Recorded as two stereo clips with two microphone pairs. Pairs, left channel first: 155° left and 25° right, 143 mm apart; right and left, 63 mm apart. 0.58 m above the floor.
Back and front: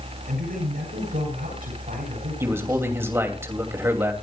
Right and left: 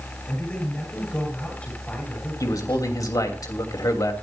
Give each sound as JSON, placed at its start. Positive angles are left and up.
{"t": 0.3, "sound": "a man speaking", "azimuth_deg": -20, "distance_m": 9.5}
{"t": 2.4, "sound": "a man speaking", "azimuth_deg": -100, "distance_m": 3.0}